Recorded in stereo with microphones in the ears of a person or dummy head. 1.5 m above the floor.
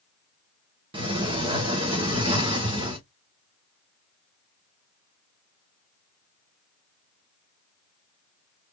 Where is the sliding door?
30° right (ahead or behind), 1.2 m.